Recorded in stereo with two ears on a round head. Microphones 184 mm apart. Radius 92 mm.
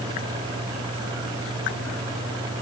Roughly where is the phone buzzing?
No phone buzzing in this recording.